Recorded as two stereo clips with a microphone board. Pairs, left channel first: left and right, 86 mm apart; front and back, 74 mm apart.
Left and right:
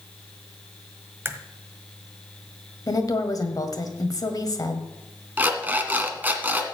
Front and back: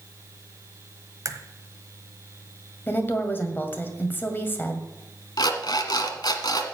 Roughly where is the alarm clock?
Ahead.